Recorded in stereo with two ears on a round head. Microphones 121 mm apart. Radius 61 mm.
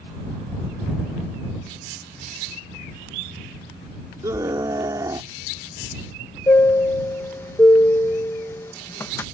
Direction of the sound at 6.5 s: 15° left (ahead or behind).